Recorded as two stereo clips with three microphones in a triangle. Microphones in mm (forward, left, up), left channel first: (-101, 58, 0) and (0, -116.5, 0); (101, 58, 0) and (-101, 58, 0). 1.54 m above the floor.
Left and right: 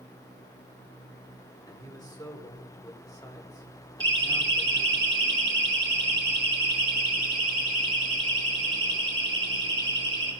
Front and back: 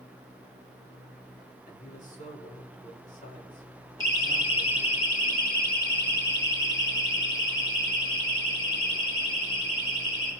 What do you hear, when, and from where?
1.7 s a man speaking: 50° left, 4.5 m
4.0 s a siren: 75° right, 2.5 m; by 10.3 s straight ahead, 6 m